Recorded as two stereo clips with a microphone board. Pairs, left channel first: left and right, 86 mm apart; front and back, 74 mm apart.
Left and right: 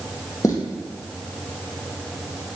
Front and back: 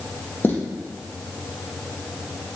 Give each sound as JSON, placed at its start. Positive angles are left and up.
{"t": 0.4, "sound": "footsteps", "azimuth_deg": 55, "distance_m": 1.9}